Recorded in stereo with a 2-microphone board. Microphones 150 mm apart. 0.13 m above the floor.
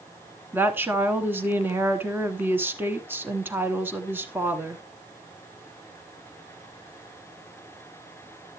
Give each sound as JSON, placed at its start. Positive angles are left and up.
{"t": 0.5, "sound": "a woman speaking", "side_deg": -15, "distance_m": 1.1}